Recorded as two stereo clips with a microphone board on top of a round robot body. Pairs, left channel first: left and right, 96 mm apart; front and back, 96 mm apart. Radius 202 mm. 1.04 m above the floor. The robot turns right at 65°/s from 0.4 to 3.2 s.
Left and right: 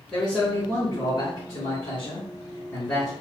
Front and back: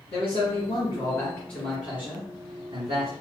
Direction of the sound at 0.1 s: 5° left.